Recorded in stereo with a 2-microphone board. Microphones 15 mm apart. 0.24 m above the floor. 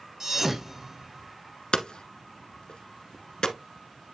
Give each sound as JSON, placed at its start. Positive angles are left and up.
{"t": 0.2, "sound": "a thud", "side_deg": -30, "distance_m": 1.5}
{"t": 1.7, "sound": "hammering", "side_deg": 70, "distance_m": 1.2}